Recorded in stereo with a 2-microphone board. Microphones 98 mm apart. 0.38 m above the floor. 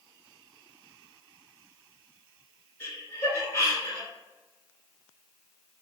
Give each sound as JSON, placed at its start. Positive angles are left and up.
{"t": 2.8, "sound": "laughter", "side_deg": 20, "distance_m": 1.0}